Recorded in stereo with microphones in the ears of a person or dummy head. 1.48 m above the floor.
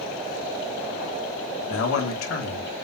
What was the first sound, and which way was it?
A man speaking, 75° left (ahead or behind).